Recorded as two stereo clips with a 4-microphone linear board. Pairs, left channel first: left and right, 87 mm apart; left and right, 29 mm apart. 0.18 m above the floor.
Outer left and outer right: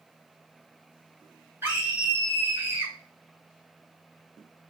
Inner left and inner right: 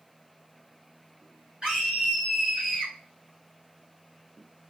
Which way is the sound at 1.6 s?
30° right (ahead or behind).